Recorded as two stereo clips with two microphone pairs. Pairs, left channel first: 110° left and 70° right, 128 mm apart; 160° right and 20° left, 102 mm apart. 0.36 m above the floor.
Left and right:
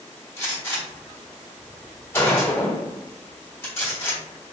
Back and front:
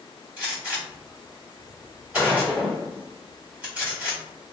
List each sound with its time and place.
0.4 s a gunshot: 80° left, 1.5 m